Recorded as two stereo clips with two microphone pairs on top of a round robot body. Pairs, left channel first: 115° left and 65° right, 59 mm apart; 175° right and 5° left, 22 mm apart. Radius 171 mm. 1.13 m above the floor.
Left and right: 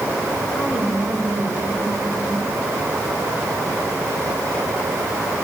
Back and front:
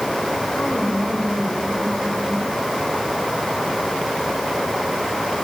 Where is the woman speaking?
165° right, 7.5 m.